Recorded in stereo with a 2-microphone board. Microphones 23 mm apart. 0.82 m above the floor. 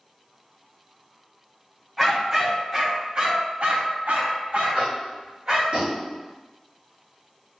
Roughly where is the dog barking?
Centre.